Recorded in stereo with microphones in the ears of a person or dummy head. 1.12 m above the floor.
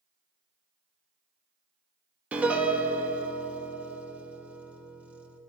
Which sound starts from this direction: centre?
A piano, at 2.3 s.